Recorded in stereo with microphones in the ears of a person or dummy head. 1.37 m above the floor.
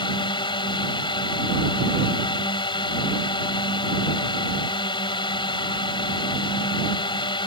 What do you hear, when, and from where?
0.0 s a drone: 20° left (ahead or behind)